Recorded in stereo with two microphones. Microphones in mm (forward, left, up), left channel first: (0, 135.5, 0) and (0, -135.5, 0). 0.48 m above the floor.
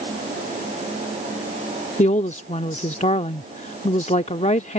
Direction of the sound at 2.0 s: 25° left (ahead or behind).